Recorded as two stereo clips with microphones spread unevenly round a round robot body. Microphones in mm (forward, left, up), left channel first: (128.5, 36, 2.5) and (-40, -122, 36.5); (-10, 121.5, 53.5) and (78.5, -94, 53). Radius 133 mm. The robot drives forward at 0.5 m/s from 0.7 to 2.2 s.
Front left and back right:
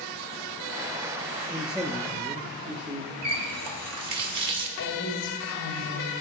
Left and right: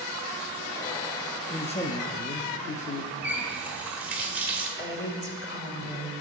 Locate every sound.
1.5 s a man speaking: 100° left, 0.6 m; by 3.1 s 150° left, 0.8 m
3.2 s a running tap: 150° right, 1.2 m
4.8 s a woman speaking: 75° left, 2 m